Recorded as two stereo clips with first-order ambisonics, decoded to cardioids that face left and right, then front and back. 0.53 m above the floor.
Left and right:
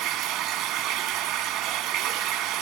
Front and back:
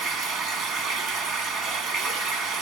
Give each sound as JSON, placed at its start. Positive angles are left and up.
{"t": 0.0, "sound": "running water", "azimuth_deg": -125, "distance_m": 1.4}